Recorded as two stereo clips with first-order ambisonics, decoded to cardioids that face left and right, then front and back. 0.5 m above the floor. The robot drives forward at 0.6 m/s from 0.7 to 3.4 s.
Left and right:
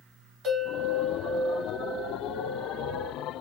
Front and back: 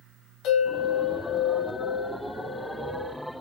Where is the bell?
30° right, 1.8 m; by 3.1 s 90° right, 0.9 m.